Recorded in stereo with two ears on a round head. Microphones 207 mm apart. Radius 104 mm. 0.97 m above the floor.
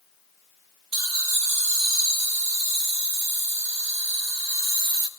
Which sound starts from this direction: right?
Laughter, at 0.9 s.